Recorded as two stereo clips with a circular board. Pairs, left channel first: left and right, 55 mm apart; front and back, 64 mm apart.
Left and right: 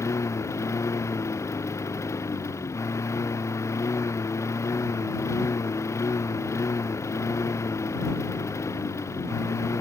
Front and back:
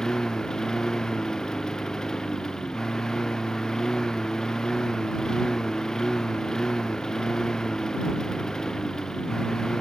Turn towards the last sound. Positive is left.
turn(degrees=80)